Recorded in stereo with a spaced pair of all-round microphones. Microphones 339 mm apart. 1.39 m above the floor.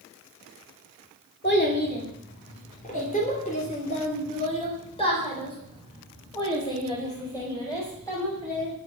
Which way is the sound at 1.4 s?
30° left (ahead or behind).